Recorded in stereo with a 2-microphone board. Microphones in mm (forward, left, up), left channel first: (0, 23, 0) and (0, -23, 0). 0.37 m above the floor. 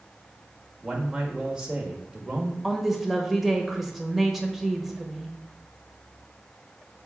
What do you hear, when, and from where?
0.8 s a man speaking: 15° right (ahead or behind), 1.3 m
2.6 s a woman speaking: 5° right (ahead or behind), 1.2 m